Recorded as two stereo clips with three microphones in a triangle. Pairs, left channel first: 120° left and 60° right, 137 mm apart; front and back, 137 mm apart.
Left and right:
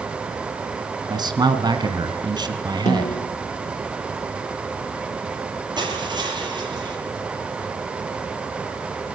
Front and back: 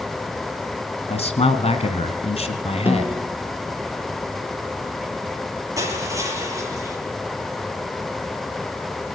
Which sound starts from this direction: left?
A snare drum, at 2.9 s.